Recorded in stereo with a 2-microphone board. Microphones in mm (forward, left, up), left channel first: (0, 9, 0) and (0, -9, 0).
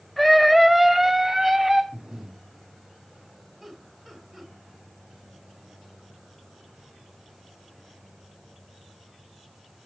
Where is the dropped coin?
I don't hear a dropped coin.